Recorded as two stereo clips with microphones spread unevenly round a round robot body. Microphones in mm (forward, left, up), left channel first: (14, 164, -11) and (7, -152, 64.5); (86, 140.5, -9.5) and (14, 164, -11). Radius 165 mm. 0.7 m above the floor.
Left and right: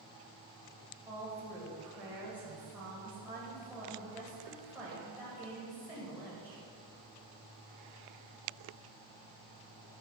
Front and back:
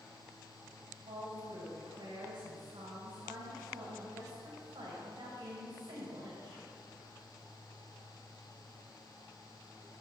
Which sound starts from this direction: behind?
A woman speaking, at 1.1 s.